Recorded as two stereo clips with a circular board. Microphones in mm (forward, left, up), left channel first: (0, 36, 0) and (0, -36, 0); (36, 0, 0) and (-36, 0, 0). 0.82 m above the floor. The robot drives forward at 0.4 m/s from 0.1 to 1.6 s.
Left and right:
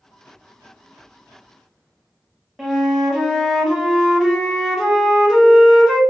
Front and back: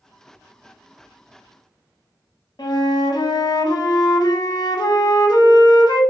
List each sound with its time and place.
2.6 s a flute: 5° right, 0.5 m